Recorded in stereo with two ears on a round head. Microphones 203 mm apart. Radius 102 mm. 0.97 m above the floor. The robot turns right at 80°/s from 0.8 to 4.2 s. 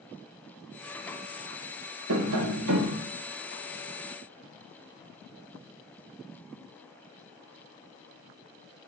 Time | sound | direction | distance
2.1 | tapping | 120° right | 0.8 m